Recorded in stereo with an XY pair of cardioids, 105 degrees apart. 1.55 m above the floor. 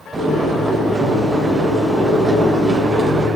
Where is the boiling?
35° right, 4 m.